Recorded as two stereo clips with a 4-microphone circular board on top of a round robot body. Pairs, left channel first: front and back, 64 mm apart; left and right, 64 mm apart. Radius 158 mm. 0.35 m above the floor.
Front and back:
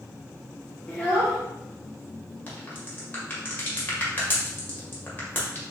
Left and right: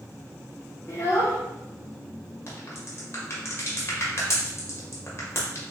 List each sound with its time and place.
0.9 s a child speaking: 60° left, 0.9 m
2.5 s a crack: 55° left, 1.4 m